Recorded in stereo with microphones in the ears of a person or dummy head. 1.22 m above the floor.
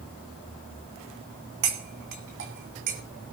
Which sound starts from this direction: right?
Cutlery clinking, at 1.6 s.